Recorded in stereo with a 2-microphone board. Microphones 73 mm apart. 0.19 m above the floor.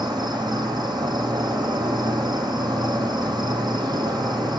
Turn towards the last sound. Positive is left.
turn(degrees=-80)